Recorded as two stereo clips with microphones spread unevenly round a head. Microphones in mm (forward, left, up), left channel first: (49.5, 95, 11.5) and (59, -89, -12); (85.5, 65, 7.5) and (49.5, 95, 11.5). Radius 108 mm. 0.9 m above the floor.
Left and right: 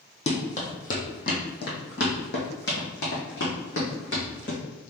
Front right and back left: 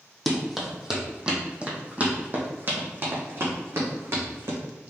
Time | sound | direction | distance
0.3 | running footsteps | 50° left | 1.7 m